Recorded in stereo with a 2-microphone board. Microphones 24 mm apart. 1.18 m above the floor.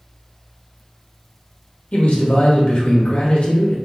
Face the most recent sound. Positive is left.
turn(degrees=60)  # may be behind; listen again after turning